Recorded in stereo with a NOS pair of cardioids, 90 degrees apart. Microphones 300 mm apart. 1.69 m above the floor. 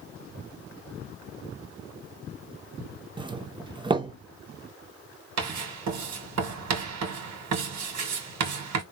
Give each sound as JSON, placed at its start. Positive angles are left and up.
{"t": 3.2, "sound": "a doorbell", "azimuth_deg": -15, "distance_m": 0.6}
{"t": 5.4, "sound": "writing", "azimuth_deg": -65, "distance_m": 1.6}